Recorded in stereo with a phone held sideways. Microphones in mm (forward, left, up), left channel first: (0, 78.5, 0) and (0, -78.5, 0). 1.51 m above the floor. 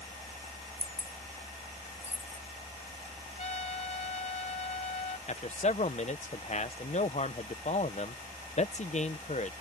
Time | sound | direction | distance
0.8 | keys jangling | 40° right (ahead or behind) | ?
3.4 | a trumpet | 50° left (ahead or behind) | ?
5.3 | a man speaking | 45° left (ahead or behind) | ?